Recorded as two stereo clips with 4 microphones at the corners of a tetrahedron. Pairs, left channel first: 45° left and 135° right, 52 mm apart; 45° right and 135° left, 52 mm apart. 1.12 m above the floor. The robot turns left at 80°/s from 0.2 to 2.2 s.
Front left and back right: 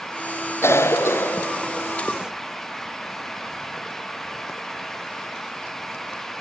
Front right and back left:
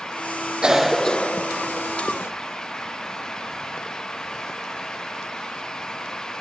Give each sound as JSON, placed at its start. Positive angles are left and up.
{"t": 0.6, "sound": "a cough", "azimuth_deg": 65, "distance_m": 0.7}